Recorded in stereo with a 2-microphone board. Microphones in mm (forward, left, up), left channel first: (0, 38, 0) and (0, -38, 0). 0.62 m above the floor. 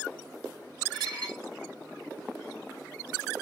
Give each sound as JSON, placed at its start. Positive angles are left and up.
{"t": 0.9, "sound": "dishes clattering", "side_deg": -75, "distance_m": 2.0}